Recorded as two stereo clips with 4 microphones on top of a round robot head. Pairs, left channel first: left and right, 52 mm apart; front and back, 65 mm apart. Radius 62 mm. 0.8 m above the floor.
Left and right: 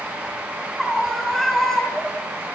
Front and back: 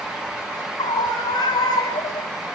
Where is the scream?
Straight ahead, 7.5 m; by 2.3 s 15° left, 5.5 m.